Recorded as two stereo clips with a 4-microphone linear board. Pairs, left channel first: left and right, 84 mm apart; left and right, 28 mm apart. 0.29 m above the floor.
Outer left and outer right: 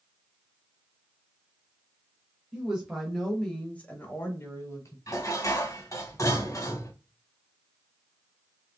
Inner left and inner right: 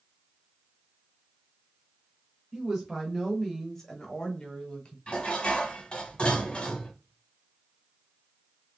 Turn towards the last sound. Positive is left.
turn(degrees=40)  # may be behind; listen again after turning